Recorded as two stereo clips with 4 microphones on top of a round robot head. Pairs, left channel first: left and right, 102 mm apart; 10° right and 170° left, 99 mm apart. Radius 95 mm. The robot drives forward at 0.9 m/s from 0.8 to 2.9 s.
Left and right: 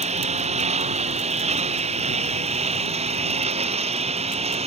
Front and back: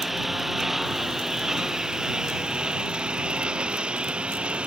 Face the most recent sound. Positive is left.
turn(degrees=-105)